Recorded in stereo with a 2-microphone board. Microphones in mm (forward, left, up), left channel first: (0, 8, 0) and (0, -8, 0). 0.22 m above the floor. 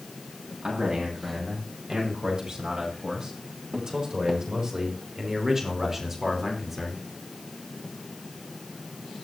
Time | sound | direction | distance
0.6 | a man speaking | 70° right (ahead or behind) | 8.5 m